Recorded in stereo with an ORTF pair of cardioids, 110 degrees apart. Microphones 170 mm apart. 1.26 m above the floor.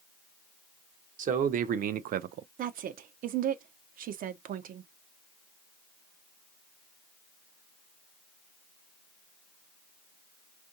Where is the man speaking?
50° right, 1.1 m; by 2.5 s 70° right, 0.5 m.